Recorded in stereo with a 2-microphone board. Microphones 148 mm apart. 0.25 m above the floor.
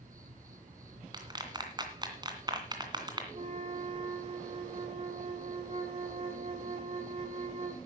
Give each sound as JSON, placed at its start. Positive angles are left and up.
{"t": 0.0, "sound": "an insect", "side_deg": -70, "distance_m": 2.0}
{"t": 1.1, "sound": "a clap", "side_deg": -30, "distance_m": 2.5}
{"t": 3.3, "sound": "a flute", "side_deg": -45, "distance_m": 1.9}